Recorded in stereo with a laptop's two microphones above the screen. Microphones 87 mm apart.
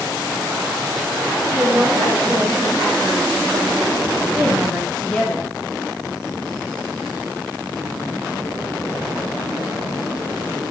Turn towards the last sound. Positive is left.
turn(degrees=20)  # may be behind; listen again after turning